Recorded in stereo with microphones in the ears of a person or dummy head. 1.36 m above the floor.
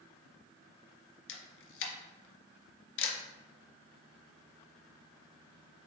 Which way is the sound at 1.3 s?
65° left (ahead or behind).